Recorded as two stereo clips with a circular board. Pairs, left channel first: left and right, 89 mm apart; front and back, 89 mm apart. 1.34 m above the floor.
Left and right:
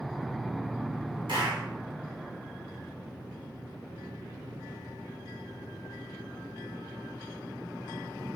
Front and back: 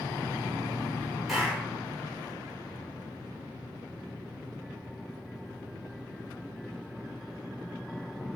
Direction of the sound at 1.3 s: 95° right.